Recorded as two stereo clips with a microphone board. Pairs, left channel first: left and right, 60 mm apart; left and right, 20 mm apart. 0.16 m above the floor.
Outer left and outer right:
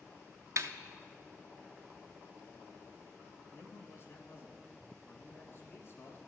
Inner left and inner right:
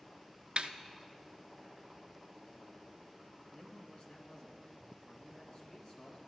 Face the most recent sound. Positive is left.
turn(degrees=45)  # may be behind; listen again after turning